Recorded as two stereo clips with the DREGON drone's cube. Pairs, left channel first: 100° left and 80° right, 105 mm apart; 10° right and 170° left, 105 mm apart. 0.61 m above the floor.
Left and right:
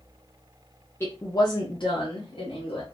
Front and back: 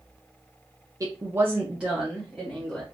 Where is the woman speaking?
145° left, 0.6 m; by 2.8 s 75° left, 1.2 m.